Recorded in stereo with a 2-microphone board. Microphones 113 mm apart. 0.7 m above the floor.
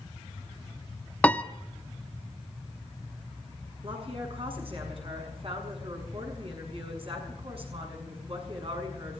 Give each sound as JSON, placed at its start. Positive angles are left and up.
{"t": 1.2, "sound": "a piano", "side_deg": 10, "distance_m": 0.7}
{"t": 3.8, "sound": "a woman speaking", "side_deg": -55, "distance_m": 7.0}